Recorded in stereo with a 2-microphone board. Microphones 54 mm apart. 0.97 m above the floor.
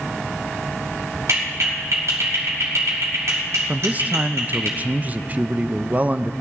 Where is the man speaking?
30° right (ahead or behind), 0.5 m.